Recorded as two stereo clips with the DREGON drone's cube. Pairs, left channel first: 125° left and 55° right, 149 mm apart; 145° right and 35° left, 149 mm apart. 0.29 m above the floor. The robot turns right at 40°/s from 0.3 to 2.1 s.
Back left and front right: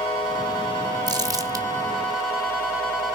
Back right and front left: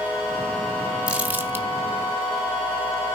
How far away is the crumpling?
About 1.4 m.